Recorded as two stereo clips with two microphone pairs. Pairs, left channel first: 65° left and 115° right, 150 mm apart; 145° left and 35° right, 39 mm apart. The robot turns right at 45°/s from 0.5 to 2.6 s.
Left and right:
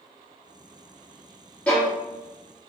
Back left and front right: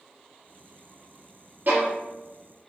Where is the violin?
15° right, 1.9 m; by 1.9 s straight ahead, 1.9 m.